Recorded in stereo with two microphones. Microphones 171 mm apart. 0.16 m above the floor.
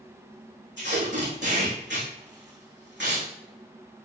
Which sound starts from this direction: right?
Tape being pulled, at 0.8 s.